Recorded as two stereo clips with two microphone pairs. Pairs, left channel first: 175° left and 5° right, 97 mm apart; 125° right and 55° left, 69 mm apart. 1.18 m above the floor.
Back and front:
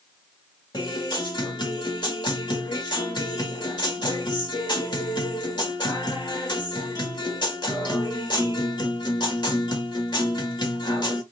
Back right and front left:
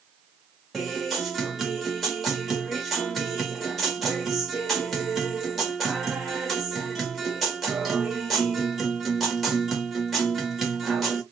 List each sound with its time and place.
0.7 s a guitar: 145° left, 1.3 m